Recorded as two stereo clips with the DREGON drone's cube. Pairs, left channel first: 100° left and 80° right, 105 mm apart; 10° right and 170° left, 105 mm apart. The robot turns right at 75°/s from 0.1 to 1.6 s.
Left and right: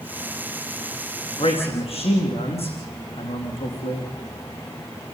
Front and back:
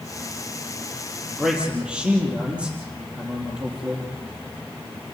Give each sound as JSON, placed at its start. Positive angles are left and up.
{"t": 1.4, "sound": "a man speaking", "azimuth_deg": 75, "distance_m": 4.5}